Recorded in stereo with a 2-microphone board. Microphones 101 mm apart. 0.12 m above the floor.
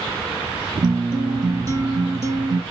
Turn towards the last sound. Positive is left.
turn(degrees=-35)  # may be behind; listen again after turning